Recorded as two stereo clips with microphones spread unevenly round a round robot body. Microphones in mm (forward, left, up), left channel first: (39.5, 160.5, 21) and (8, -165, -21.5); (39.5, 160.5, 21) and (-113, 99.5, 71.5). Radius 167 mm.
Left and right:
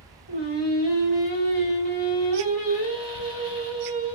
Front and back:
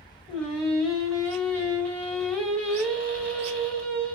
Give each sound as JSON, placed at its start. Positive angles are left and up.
{"t": 0.3, "sound": "singing", "azimuth_deg": 90, "distance_m": 1.4}
{"t": 3.1, "sound": "a squeak", "azimuth_deg": -75, "distance_m": 0.8}